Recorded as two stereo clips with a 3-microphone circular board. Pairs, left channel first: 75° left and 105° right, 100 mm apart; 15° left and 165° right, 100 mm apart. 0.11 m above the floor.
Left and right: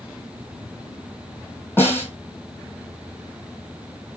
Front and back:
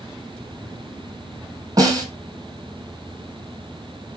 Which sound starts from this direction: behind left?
A snare drum, at 1.8 s.